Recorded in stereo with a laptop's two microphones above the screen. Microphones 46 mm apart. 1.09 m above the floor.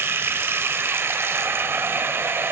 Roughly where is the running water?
Right.